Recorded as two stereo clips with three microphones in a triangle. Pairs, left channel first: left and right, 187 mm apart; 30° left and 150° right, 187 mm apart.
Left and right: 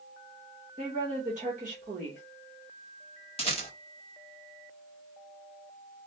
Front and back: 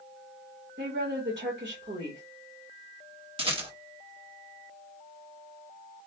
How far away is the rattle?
About 1.0 m.